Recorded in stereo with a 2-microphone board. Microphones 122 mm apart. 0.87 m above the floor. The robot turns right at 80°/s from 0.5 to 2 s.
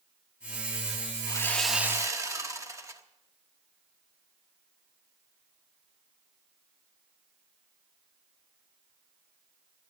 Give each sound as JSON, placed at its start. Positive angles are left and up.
{"t": 1.3, "sound": "sawing", "azimuth_deg": 150, "distance_m": 1.2}